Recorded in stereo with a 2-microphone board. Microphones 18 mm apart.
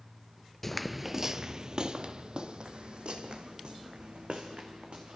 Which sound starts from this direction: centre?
Footsteps, at 0.6 s.